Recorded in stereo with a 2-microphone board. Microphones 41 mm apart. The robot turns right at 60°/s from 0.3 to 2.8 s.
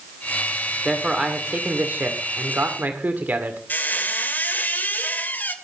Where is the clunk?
I don't hear a clunk.